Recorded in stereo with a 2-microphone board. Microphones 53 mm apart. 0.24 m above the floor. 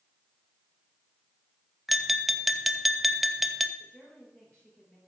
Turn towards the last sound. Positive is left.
turn(degrees=15)  # may be behind; listen again after turning